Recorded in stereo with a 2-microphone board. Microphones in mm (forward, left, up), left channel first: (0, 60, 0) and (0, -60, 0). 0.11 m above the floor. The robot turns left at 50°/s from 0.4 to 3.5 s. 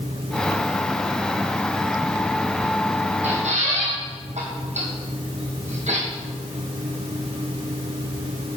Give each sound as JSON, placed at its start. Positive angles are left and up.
{"t": 3.2, "sound": "a squeak", "side_deg": -65, "distance_m": 2.5}